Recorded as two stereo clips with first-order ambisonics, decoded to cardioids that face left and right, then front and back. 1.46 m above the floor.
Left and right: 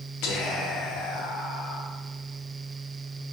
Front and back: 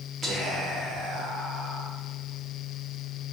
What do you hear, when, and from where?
0.2 s whispering: 110° left, 1.1 m